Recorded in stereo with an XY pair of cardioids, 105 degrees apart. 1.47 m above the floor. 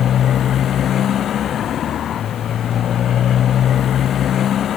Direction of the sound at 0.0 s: 60° left.